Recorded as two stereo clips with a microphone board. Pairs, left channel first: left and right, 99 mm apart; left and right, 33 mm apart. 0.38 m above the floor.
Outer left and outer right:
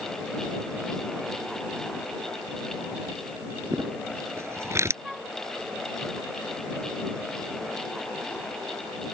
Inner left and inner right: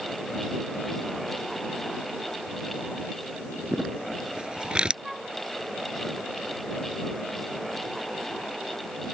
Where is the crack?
No crack in this recording.